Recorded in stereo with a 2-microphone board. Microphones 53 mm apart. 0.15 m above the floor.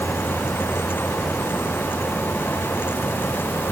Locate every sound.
Only background noise.